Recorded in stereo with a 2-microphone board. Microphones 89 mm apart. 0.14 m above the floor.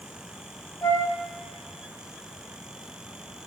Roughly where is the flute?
Left.